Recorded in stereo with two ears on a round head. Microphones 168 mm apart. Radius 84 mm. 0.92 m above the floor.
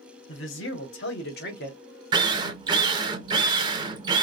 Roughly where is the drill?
Right.